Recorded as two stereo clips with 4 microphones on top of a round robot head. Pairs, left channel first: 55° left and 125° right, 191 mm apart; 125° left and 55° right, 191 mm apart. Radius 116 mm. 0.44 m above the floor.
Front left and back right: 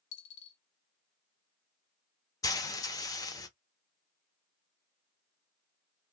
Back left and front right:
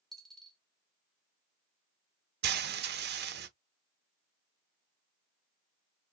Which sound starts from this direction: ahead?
Frying, at 2.4 s.